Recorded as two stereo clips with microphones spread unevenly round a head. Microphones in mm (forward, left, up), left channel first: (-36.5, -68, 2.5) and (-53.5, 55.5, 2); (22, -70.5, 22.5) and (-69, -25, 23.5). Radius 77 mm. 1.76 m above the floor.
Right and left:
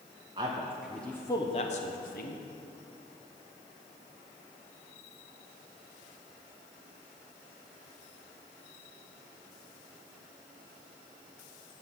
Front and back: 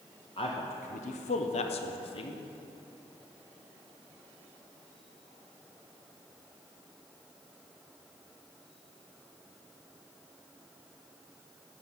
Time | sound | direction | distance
0.4 | a man speaking | 35° left | 1.0 m